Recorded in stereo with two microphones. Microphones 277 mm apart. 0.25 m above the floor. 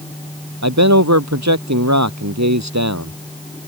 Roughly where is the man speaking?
Right.